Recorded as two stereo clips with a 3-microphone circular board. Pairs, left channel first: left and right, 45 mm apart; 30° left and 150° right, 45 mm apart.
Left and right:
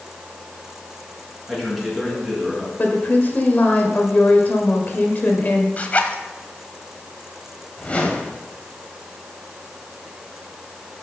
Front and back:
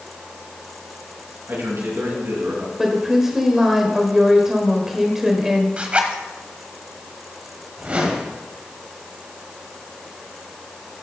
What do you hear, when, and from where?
1.5 s a man speaking: 175° right, 4.5 m
2.8 s a woman speaking: 130° left, 1.5 m
5.8 s a zipper: 145° left, 1.1 m
7.8 s a whoosh: 150° left, 1.7 m